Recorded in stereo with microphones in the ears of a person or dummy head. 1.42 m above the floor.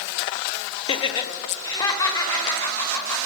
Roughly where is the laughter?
Left.